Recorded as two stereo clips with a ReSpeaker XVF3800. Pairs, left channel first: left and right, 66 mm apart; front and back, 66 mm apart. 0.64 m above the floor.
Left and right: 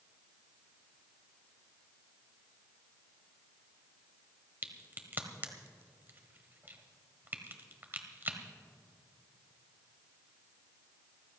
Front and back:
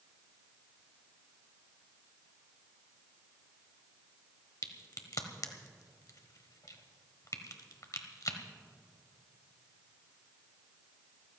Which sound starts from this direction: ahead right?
A crack, at 4.6 s.